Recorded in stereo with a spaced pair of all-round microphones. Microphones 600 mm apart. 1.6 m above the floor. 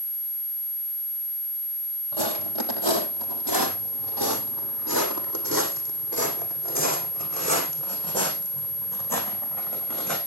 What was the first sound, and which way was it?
Footsteps, 55° right (ahead or behind).